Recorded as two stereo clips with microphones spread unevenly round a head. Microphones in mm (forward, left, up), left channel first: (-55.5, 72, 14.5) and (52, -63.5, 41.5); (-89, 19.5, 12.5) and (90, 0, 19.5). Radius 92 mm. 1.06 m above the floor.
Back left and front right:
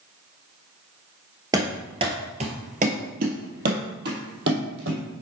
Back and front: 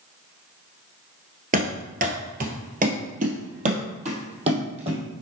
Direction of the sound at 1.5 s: Straight ahead.